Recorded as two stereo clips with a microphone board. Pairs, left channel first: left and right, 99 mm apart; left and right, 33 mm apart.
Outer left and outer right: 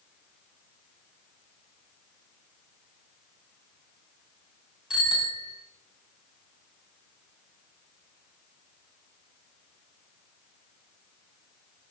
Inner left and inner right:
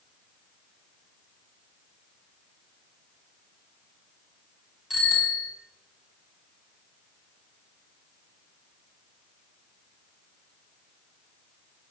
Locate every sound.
4.9 s a bicycle bell: 5° right (ahead or behind), 7.5 m